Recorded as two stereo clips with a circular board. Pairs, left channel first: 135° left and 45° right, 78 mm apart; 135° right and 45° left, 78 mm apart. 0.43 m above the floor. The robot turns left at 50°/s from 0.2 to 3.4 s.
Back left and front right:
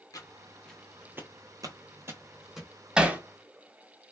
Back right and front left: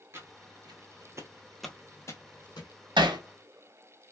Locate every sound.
0.1 s footsteps: 100° left, 0.9 m; by 2.7 s 140° right, 0.9 m
3.0 s hammering: 35° left, 0.6 m; by 3.2 s 20° left, 0.6 m